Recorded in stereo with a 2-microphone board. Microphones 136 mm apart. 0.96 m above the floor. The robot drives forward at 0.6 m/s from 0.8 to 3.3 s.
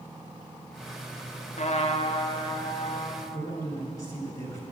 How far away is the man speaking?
About 3 m.